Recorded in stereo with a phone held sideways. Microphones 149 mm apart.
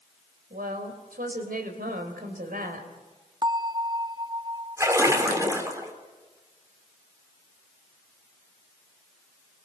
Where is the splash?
20° right (ahead or behind), 3 m.